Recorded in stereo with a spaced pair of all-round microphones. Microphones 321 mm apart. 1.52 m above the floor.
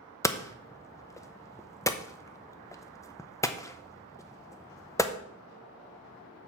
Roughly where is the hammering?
Centre.